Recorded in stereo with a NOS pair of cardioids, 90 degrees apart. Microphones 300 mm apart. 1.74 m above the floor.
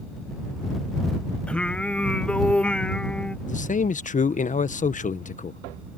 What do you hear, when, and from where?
1.5 s singing: 5° left
3.5 s a man speaking: 25° left